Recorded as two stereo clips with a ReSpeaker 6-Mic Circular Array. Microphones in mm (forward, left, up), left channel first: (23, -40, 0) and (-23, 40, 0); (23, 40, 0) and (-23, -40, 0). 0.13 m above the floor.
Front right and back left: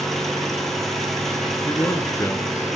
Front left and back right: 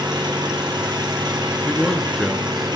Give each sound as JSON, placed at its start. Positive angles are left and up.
{"t": 0.0, "sound": "an engine running", "azimuth_deg": -145, "distance_m": 3.0}
{"t": 1.6, "sound": "a man speaking", "azimuth_deg": -30, "distance_m": 1.4}